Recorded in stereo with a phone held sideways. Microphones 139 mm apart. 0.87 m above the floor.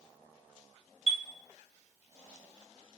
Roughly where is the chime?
Left.